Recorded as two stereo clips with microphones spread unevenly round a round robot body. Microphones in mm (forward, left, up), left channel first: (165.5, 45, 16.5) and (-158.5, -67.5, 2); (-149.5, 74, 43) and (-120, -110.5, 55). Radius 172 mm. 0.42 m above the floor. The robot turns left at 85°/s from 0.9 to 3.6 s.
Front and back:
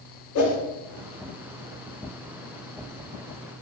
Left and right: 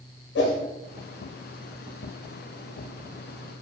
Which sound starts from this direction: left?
A whoosh, at 0.3 s.